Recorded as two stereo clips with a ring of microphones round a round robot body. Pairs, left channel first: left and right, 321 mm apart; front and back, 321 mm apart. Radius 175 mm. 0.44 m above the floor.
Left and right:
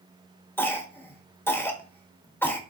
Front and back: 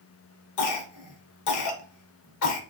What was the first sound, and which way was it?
A cough, 5° left.